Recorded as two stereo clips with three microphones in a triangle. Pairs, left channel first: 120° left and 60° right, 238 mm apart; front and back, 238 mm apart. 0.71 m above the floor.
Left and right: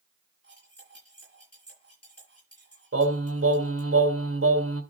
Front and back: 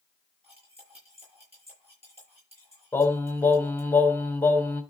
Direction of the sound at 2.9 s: 85° right.